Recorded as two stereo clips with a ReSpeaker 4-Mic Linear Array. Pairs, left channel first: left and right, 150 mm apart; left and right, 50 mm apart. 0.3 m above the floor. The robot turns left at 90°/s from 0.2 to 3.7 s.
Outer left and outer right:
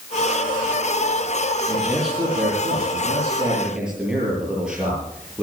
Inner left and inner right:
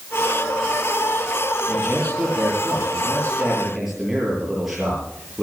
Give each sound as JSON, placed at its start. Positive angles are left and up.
{"t": 1.7, "sound": "a man speaking", "azimuth_deg": 5, "distance_m": 7.5}